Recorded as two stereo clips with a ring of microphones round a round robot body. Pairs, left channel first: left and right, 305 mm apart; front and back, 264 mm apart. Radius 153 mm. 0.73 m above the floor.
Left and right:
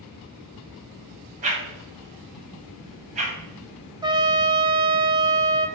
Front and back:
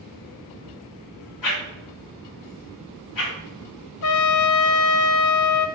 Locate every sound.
1.4 s a whoosh: 20° right, 1.5 m
4.0 s a trumpet: 15° right, 0.6 m